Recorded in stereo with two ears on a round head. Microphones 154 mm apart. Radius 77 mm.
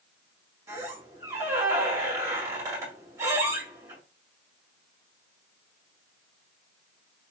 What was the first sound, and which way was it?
A squeak, 15° right (ahead or behind).